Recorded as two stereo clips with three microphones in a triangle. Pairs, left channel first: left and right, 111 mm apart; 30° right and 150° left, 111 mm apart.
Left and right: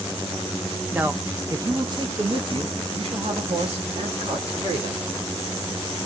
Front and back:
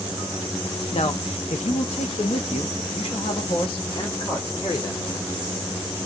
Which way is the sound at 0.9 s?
10° right.